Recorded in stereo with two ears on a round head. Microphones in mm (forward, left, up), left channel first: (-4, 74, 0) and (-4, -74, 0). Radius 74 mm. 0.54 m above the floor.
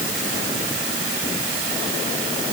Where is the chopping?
I don't hear chopping.